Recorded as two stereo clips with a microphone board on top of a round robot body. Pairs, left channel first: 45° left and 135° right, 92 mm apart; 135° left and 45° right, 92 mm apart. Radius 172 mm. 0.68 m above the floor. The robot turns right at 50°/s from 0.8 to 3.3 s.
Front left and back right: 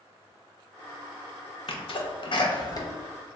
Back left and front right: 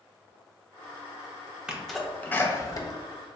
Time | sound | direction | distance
1.7 | a sneeze | 35° left | 0.9 m